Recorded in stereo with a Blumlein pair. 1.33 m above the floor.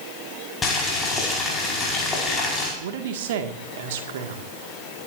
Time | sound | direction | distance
0.6 | boiling | 20° left | 5 m
2.8 | a man speaking | 55° right | 1.9 m